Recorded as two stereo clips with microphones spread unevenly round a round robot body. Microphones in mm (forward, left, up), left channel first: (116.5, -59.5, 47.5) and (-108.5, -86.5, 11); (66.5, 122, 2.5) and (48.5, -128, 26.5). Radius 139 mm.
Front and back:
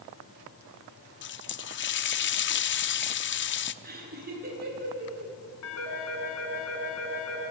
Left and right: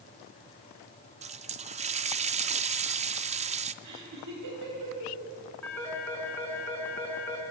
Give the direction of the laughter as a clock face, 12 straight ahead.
4 o'clock.